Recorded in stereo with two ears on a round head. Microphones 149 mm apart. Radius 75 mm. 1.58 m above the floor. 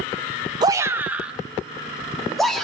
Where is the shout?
25° right (ahead or behind), 1.0 m; by 2.6 s centre (ahead or behind), 4 m.